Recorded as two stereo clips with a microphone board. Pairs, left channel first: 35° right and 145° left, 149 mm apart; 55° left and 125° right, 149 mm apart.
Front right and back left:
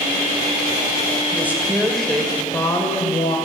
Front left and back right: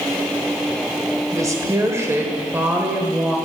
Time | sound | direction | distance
1.3 | a woman speaking | 155° right | 1.2 m